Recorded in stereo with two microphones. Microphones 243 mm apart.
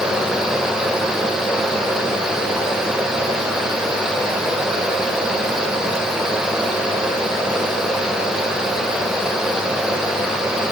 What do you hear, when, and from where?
Only background noise.